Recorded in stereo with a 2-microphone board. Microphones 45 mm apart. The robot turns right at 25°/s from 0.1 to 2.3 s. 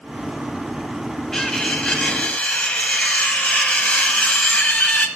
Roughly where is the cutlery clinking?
Centre.